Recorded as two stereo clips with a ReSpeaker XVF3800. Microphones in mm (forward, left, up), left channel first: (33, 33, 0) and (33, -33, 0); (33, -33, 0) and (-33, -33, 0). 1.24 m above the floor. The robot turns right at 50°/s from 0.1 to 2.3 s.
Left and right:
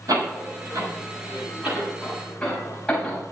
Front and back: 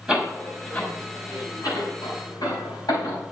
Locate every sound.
0.1 s a door slam: 100° right, 6.5 m; by 3.2 s 10° left, 6.5 m